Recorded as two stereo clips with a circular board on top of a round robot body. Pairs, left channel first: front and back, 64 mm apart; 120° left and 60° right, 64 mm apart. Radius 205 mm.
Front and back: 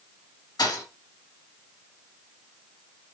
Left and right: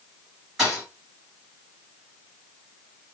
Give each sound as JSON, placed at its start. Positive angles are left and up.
{"t": 0.6, "sound": "a thud", "azimuth_deg": 25, "distance_m": 3.5}